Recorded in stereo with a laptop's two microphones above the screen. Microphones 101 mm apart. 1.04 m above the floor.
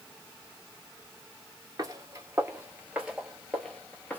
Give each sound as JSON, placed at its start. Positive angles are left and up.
{"t": 1.8, "sound": "footsteps", "side_deg": -40, "distance_m": 1.3}